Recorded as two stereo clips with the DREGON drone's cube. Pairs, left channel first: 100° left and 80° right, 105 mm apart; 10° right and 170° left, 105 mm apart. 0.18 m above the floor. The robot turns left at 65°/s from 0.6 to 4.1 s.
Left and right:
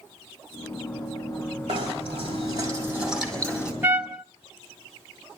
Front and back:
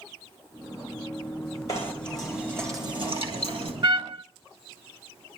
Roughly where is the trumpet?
Behind right.